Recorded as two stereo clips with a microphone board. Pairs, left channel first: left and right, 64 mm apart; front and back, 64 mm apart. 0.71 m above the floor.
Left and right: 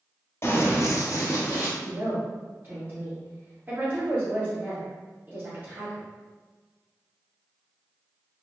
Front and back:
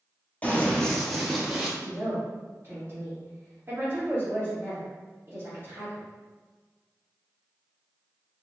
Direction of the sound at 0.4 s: 55° left.